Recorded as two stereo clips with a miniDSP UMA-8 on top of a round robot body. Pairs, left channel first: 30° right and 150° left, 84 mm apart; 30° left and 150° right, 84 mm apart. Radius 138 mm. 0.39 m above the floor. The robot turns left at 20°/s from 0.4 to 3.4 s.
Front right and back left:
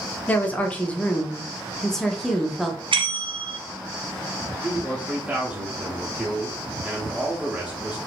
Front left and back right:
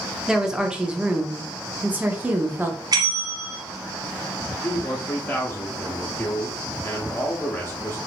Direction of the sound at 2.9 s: 170° left.